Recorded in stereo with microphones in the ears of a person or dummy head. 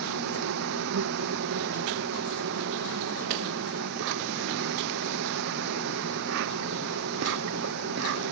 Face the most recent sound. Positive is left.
turn(degrees=-65)  # may be behind; listen again after turning